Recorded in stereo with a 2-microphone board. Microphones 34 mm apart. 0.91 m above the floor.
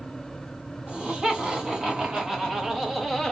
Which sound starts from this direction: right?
Laughter, at 0.9 s.